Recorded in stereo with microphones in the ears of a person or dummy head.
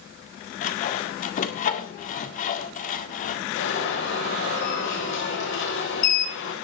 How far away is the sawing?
About 1.9 m.